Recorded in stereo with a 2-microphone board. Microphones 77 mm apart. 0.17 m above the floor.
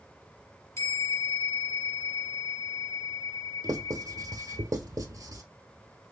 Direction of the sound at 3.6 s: 50° right (ahead or behind).